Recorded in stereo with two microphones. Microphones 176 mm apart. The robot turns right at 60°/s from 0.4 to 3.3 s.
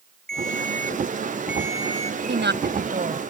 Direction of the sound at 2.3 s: 90° right.